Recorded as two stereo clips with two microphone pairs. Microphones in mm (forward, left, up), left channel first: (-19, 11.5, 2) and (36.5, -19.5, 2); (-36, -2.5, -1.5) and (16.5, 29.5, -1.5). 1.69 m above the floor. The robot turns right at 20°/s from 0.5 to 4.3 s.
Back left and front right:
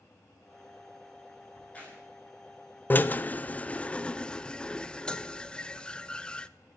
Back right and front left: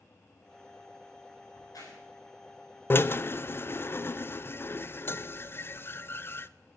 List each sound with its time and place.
1.5 s a crack: 145° right, 5.5 m; by 2.0 s 135° right, 5.5 m
2.9 s a drill: 165° right, 0.5 m; by 6.5 s 140° right, 0.5 m